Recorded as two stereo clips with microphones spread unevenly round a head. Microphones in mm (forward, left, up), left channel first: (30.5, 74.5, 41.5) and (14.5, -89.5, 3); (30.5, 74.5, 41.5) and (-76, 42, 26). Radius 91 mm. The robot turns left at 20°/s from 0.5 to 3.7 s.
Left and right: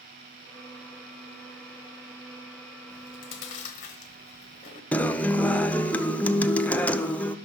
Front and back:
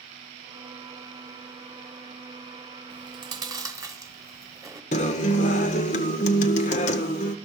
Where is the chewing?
150° left, 0.9 m; by 4.8 s 130° left, 0.9 m.